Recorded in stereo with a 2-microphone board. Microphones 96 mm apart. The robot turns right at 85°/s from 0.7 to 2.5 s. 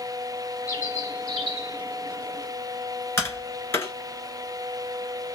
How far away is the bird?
About 1.4 m.